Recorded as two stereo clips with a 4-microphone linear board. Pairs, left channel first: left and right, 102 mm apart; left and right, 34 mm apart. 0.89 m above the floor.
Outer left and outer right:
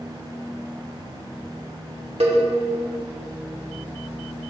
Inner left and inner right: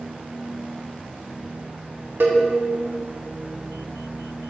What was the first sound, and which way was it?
A cowbell, 75° right (ahead or behind).